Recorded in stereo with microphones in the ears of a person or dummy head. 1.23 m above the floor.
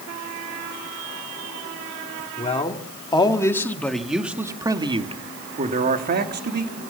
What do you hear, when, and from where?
2.4 s a man speaking: 30° left (ahead or behind), 3 m; by 6.8 s 55° right (ahead or behind), 3 m